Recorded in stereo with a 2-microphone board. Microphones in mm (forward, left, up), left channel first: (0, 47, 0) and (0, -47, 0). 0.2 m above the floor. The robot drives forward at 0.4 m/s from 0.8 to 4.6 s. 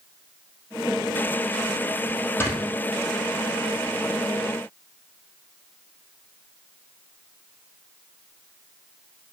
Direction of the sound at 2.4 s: 25° left (ahead or behind).